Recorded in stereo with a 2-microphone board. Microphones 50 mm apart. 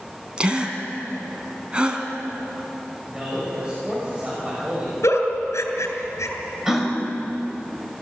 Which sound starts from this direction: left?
A giggle, at 5.0 s.